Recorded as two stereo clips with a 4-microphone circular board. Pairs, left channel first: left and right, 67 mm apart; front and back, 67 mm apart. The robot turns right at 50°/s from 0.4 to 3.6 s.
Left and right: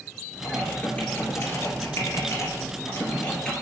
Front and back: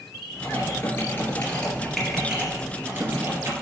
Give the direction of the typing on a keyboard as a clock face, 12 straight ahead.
12 o'clock.